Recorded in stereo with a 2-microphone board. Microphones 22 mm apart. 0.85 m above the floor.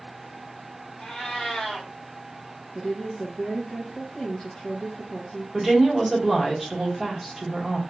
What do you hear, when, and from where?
1.0 s a cat meowing: 65° left (ahead or behind), 1.8 m
2.8 s a woman speaking: 40° left (ahead or behind), 0.7 m
5.5 s a woman speaking: 5° right (ahead or behind), 1.1 m